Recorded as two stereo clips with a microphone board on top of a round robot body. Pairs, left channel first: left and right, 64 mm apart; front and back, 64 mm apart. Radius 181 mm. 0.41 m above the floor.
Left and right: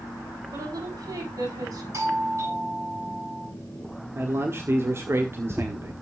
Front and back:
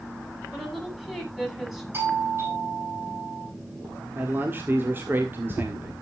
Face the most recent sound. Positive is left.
turn(degrees=-130)